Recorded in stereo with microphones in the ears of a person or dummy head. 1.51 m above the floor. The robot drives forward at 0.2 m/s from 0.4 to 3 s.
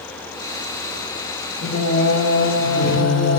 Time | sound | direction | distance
1.6 | singing | 60° left (ahead or behind) | 1.3 m